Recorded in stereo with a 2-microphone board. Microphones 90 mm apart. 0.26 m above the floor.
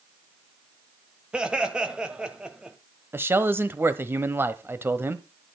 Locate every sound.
1.3 s laughter: 10° right (ahead or behind), 1.5 m
3.1 s a man speaking: 25° right (ahead or behind), 1.0 m